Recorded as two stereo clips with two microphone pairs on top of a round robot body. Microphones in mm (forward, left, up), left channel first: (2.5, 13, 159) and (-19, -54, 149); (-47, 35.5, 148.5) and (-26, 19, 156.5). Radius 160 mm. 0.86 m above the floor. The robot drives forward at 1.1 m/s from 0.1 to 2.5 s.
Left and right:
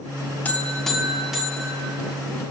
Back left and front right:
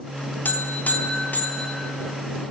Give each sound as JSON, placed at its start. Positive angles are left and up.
{"t": 0.5, "sound": "a buzzer", "azimuth_deg": 140, "distance_m": 0.7}